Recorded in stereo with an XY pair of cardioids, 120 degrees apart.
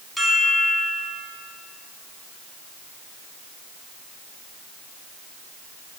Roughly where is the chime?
Ahead.